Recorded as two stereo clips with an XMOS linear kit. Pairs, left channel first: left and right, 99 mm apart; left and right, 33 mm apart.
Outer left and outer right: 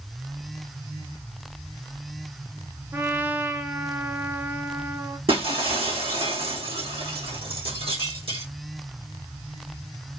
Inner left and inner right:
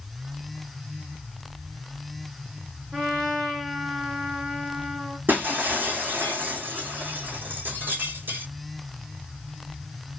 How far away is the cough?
No cough in this recording.